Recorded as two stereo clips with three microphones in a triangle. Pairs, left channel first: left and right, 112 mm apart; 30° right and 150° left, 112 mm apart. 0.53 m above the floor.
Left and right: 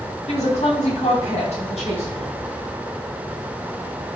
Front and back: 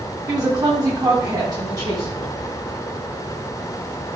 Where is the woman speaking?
95° left, 4 m.